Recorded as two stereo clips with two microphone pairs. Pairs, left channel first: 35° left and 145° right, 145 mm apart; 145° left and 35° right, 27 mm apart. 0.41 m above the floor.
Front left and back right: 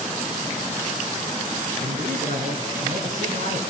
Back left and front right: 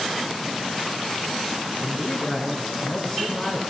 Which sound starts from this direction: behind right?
A man speaking, at 1.8 s.